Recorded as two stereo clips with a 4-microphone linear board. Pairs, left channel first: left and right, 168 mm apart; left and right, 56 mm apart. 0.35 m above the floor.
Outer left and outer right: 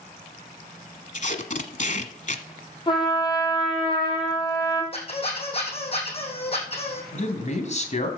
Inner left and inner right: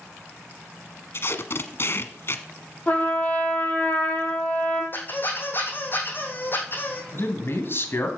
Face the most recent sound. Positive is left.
turn(degrees=45)  # may be behind; listen again after turning